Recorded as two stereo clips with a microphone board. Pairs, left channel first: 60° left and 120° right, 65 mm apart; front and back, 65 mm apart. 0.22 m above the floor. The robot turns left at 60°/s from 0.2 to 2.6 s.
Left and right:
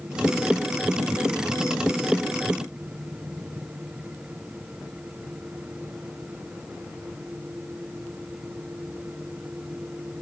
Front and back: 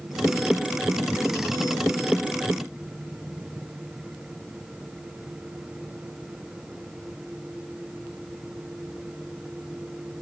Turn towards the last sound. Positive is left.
No sound to turn to.